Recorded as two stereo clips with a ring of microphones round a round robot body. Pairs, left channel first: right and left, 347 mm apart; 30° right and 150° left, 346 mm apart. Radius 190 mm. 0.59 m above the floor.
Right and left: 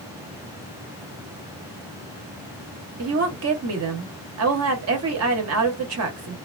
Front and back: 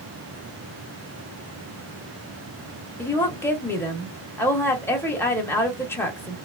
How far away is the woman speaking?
About 1.1 m.